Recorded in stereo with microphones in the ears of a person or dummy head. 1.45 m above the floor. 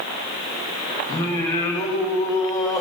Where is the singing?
20° left (ahead or behind), 2 m.